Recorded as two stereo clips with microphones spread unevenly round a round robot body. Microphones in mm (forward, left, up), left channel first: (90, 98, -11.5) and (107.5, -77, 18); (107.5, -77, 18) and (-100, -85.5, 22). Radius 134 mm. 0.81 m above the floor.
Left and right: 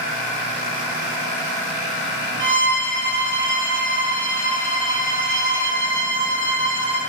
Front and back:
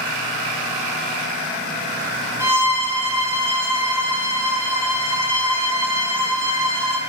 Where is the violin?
100° right, 0.9 m.